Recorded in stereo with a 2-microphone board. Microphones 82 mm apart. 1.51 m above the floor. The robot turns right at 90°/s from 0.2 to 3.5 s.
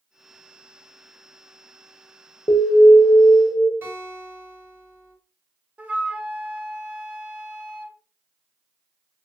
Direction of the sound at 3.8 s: 30° right (ahead or behind).